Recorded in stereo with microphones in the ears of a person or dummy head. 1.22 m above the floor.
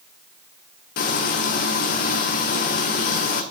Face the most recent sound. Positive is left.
turn(degrees=45)  # may be behind; listen again after turning